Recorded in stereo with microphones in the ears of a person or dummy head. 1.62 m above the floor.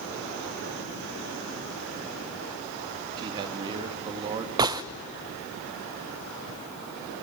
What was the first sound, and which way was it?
A man speaking, 25° right (ahead or behind).